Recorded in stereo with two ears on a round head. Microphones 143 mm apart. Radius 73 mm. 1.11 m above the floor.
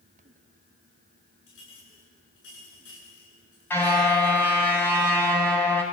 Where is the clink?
85° left, 9.5 m.